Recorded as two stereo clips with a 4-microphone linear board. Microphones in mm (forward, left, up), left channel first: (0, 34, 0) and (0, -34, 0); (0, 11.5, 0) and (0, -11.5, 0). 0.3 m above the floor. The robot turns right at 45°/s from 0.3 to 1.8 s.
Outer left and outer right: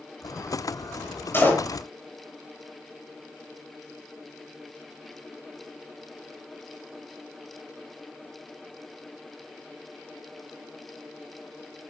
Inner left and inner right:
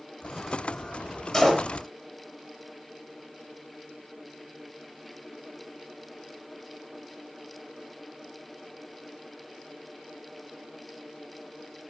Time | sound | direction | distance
1.3 | a door slam | 35° left (ahead or behind) | 5.5 m